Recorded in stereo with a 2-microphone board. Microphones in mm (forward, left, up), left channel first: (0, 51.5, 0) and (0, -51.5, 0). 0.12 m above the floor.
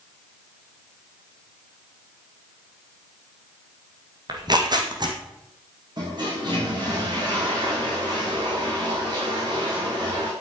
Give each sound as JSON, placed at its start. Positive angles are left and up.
{"t": 4.3, "sound": "tearing paper", "side_deg": -45, "distance_m": 3.0}
{"t": 6.0, "sound": "a toilet flushing", "side_deg": -45, "distance_m": 7.0}